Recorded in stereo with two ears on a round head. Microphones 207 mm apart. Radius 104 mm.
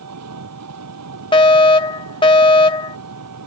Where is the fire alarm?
20° left (ahead or behind).